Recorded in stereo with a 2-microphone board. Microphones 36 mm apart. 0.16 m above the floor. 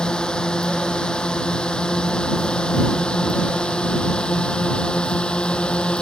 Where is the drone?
25° left (ahead or behind); by 6.0 s 30° left (ahead or behind).